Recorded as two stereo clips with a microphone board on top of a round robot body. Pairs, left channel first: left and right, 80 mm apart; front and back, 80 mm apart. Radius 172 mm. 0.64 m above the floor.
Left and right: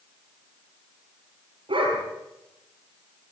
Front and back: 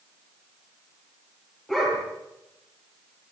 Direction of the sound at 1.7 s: 85° right.